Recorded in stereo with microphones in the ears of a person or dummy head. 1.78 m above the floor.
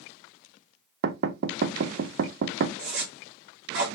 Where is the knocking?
60° right (ahead or behind), 0.7 m.